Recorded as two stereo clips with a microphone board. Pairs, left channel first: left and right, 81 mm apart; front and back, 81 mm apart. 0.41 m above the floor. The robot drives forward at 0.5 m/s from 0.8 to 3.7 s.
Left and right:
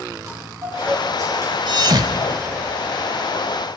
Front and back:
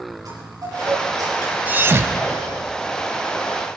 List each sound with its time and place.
0.2 s a chime: 135° right, 6 m; by 1.6 s 140° right, 6 m
1.7 s a thud: 110° right, 0.7 m; by 2.8 s 145° right, 1.0 m